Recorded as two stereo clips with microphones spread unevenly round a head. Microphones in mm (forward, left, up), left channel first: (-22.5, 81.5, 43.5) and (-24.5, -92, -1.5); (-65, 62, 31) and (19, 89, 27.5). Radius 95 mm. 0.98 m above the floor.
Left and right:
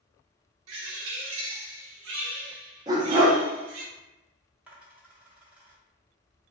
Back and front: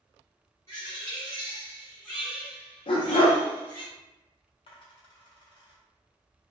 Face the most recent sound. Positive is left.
turn(degrees=180)